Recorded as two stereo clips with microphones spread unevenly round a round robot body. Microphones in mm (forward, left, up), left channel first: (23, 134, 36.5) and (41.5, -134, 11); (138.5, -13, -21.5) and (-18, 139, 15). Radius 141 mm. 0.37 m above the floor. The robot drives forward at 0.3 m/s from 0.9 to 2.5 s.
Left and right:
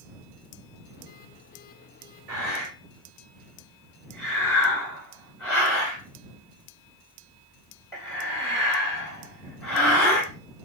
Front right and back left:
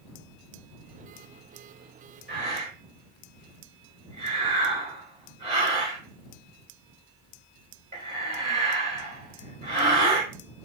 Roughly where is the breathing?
Behind.